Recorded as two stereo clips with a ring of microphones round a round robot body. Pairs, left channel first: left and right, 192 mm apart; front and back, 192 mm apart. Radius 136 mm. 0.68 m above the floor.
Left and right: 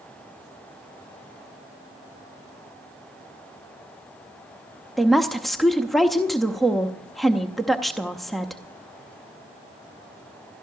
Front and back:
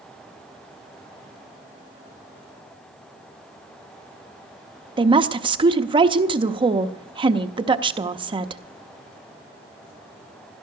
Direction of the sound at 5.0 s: Straight behind.